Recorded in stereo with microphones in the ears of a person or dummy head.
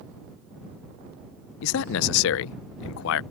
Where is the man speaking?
70° left (ahead or behind).